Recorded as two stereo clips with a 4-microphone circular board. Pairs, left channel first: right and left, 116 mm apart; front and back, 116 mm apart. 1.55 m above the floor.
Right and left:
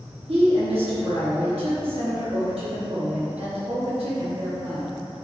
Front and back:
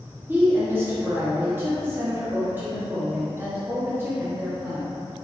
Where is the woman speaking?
110° left, 0.9 m.